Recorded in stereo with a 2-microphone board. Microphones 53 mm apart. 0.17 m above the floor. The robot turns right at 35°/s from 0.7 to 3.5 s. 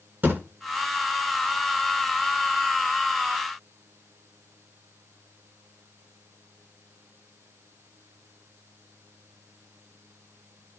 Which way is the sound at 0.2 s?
40° right (ahead or behind).